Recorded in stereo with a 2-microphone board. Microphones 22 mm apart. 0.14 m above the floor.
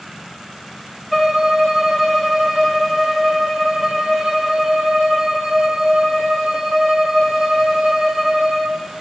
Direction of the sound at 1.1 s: 5° right (ahead or behind).